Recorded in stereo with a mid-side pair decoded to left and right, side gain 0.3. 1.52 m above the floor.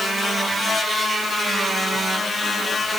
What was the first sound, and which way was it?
Only background noise.